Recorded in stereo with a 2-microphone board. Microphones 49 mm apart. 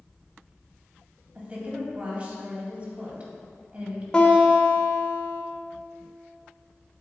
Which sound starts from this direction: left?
A guitar, at 4.1 s.